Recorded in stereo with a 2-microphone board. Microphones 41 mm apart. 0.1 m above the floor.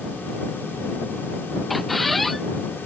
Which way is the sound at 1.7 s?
Centre (ahead or behind).